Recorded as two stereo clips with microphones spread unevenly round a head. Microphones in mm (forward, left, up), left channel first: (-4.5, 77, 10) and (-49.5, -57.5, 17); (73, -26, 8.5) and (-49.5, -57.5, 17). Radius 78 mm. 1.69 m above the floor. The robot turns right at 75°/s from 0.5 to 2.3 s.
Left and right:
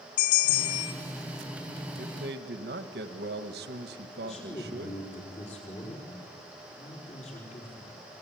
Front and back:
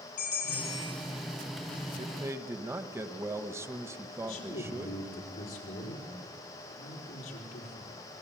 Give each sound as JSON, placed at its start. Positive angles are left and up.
{"t": 0.2, "sound": "a bell", "azimuth_deg": 95, "distance_m": 2.0}
{"t": 2.0, "sound": "a man speaking", "azimuth_deg": -125, "distance_m": 1.5}
{"t": 4.2, "sound": "a man speaking", "azimuth_deg": 20, "distance_m": 5.0}